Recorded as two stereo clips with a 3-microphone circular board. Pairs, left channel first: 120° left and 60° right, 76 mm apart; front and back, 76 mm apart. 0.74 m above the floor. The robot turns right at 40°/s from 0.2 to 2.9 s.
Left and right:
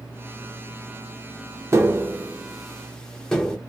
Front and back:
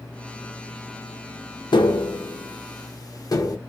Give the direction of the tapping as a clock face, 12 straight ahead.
12 o'clock.